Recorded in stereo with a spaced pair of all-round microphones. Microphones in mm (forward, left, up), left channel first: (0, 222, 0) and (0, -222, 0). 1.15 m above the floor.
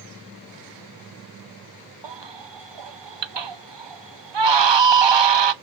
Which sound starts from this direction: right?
A baby crying, at 2.0 s.